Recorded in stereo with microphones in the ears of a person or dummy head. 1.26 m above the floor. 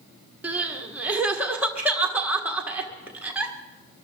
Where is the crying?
5° right (ahead or behind), 1.3 m.